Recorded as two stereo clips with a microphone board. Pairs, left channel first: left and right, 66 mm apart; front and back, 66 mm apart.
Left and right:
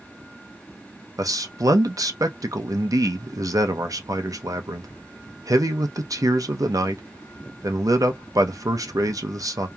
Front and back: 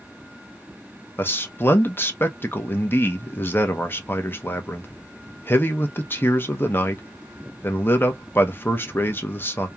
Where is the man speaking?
60° right, 0.7 m.